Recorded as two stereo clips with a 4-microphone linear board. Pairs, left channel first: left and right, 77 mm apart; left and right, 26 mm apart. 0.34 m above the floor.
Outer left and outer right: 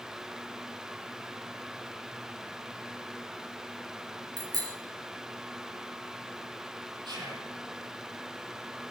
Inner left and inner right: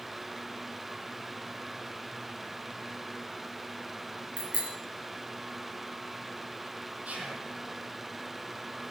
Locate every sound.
4.4 s a bicycle bell: 60° right (ahead or behind), 3.5 m
7.0 s whispering: 85° right, 9.5 m